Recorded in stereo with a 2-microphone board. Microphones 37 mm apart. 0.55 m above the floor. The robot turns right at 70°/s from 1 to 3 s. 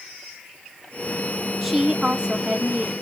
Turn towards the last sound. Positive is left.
turn(degrees=-85)